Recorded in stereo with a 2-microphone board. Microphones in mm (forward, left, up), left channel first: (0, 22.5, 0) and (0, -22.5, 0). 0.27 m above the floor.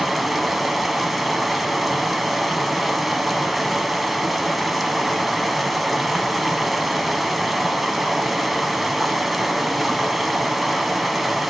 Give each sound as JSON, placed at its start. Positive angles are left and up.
{"t": 0.0, "sound": "running water", "side_deg": 0, "distance_m": 0.8}